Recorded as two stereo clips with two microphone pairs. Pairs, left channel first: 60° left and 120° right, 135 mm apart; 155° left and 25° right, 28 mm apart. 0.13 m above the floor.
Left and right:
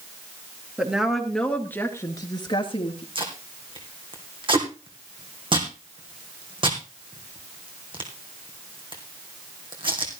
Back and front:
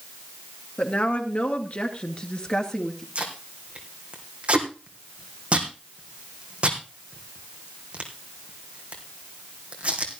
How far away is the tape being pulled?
About 2.5 m.